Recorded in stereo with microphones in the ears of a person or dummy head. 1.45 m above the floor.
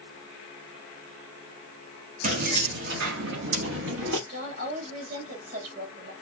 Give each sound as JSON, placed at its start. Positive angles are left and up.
{"t": 2.2, "sound": "keys jangling", "side_deg": -45, "distance_m": 1.6}
{"t": 4.3, "sound": "a woman speaking", "side_deg": -55, "distance_m": 3.0}